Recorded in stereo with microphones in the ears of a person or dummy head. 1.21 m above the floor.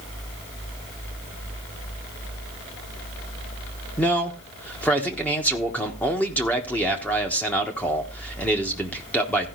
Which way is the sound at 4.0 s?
5° left (ahead or behind).